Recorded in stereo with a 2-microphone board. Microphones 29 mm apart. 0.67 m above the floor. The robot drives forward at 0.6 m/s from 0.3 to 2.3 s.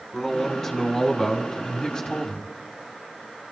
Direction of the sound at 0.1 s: 10° left (ahead or behind).